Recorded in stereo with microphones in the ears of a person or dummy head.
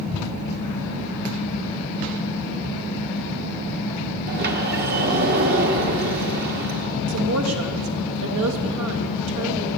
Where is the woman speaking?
85° right, 1.7 m.